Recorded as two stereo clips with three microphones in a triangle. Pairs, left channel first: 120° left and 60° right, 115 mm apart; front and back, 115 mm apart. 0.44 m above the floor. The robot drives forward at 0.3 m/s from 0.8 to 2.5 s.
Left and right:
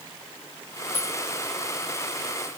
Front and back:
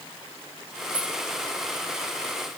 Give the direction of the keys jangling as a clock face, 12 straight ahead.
9 o'clock.